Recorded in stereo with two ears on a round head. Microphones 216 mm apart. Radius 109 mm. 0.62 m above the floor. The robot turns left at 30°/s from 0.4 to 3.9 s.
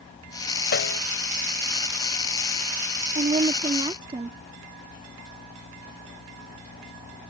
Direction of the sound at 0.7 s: 45° left (ahead or behind).